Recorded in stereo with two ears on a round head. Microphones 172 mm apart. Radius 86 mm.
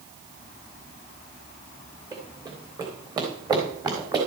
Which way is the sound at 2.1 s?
20° right (ahead or behind).